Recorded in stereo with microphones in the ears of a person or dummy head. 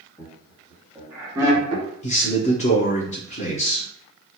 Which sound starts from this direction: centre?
Laughter, at 0.2 s.